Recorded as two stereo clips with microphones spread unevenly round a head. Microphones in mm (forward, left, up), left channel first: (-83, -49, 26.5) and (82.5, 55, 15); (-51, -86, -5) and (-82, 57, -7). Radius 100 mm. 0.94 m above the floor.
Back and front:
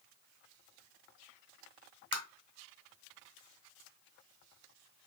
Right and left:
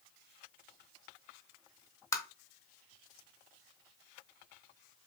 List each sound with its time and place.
2.1 s tapping: 120° right, 0.7 m